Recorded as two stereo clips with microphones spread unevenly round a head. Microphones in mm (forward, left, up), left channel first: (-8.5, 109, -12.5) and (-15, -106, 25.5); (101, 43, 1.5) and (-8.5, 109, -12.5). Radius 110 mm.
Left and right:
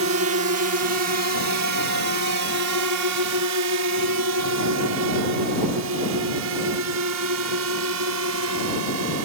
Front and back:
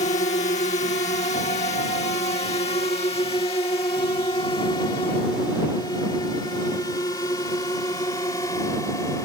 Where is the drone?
70° right; by 9.3 s 105° right.